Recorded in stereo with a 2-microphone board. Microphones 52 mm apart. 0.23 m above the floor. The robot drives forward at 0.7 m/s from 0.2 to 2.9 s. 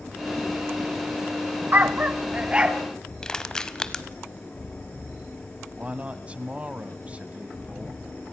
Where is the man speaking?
25° right (ahead or behind), 1.3 m.